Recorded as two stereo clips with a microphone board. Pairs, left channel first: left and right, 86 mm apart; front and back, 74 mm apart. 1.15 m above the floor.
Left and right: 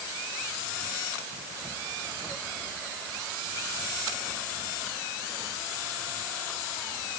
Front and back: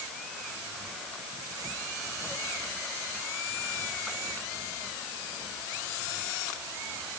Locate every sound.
Only background noise.